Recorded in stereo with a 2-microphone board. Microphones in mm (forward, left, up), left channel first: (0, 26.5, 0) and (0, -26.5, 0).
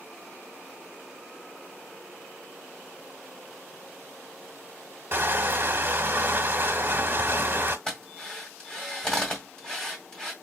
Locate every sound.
5.1 s crushing: 40° right (ahead or behind), 0.8 m
7.9 s a drill: 15° left (ahead or behind), 1.8 m